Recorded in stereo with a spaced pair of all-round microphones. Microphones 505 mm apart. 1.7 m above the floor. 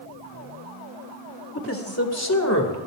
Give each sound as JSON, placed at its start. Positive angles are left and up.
{"t": 1.6, "sound": "a man speaking", "side_deg": 25, "distance_m": 2.0}